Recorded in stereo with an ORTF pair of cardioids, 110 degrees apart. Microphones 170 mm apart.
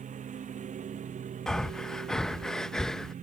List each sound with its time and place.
0.0 s a lawn mower: 45° right
1.5 s breathing: 5° left